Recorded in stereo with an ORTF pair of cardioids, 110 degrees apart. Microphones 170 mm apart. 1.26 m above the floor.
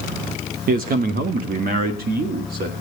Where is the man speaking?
60° right, 1.1 m; by 2.7 s 65° right, 2 m.